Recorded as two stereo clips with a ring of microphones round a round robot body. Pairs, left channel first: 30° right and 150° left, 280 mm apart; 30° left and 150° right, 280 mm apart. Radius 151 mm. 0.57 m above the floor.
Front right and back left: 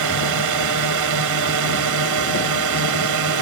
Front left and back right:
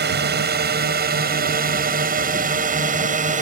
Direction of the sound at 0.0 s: 155° left.